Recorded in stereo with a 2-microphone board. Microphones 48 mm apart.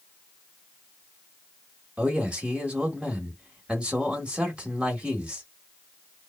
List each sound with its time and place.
2.0 s a man speaking: 25° right (ahead or behind), 1.1 m